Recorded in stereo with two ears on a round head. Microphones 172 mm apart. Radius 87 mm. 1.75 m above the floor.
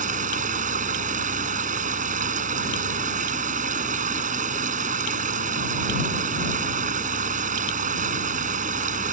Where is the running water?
45° right (ahead or behind).